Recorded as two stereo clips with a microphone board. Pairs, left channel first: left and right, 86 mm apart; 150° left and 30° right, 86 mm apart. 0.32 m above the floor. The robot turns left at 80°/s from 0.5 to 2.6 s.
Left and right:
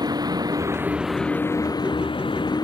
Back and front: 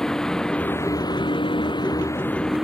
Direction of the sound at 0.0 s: 125° right.